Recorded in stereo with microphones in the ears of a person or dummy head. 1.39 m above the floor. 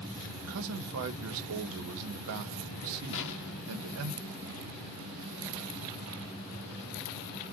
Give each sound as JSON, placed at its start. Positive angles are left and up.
{"t": 0.4, "sound": "a man speaking", "side_deg": -75, "distance_m": 0.7}
{"t": 3.1, "sound": "an explosion", "side_deg": 60, "distance_m": 0.6}